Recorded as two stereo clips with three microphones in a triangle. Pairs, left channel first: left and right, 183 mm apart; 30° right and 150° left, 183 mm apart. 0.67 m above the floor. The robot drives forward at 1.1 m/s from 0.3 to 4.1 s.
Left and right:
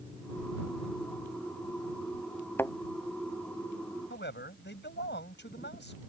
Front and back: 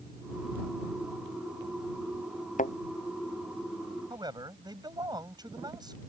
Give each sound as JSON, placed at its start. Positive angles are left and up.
{"t": 2.6, "sound": "a thud", "azimuth_deg": 15}
{"t": 4.1, "sound": "a man speaking", "azimuth_deg": 85}